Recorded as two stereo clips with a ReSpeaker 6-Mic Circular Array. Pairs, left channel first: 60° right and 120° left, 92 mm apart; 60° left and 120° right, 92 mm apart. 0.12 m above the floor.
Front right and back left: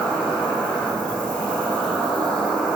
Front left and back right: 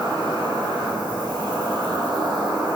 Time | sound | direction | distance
0.0 | an insect | 135° right | 2 m